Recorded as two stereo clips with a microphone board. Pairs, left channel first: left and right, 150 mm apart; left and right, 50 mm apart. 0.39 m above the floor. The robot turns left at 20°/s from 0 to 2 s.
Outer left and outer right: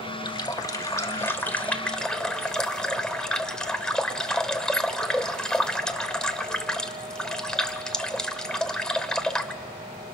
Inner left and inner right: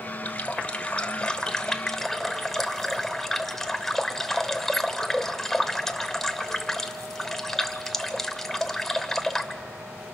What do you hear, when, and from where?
0.2 s a running tap: 40° left, 1.0 m; by 9.6 s 5° left, 1.0 m